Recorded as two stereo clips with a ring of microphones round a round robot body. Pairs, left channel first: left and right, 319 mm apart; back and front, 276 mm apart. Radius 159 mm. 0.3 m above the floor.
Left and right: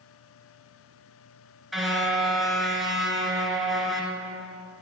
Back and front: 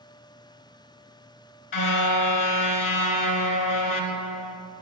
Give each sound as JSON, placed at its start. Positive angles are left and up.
{"t": 1.7, "sound": "a car horn", "azimuth_deg": 180, "distance_m": 2.0}